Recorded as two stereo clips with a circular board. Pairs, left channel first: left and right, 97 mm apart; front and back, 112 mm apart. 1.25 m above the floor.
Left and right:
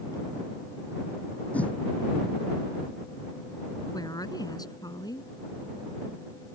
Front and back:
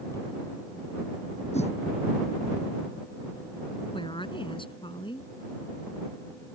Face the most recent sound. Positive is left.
turn(degrees=40)